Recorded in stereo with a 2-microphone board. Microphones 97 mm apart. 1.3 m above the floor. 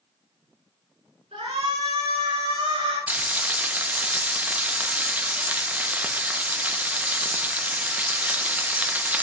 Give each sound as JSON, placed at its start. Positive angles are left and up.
{"t": 1.3, "sound": "a shout", "side_deg": -85, "distance_m": 4.5}
{"t": 3.1, "sound": "frying", "side_deg": -15, "distance_m": 0.6}